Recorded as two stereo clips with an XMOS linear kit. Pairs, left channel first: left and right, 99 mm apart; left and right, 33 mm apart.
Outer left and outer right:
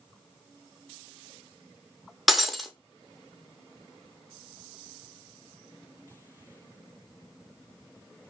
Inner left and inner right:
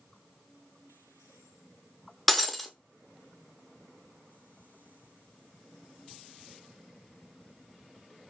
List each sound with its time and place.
2.3 s breaking glass: centre (ahead or behind), 0.6 m